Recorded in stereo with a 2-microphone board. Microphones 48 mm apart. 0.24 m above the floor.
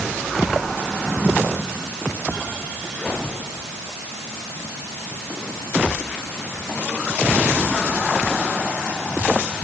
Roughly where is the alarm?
No alarm in this recording.